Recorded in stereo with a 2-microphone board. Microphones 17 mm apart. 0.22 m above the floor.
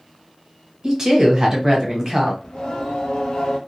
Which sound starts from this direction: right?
A woman speaking, at 0.8 s.